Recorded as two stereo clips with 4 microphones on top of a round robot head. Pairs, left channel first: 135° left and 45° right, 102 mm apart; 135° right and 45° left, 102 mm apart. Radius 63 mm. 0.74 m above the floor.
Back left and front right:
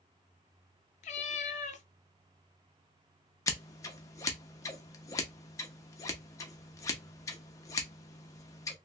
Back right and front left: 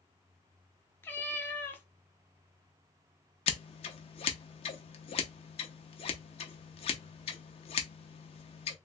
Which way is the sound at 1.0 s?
155° left.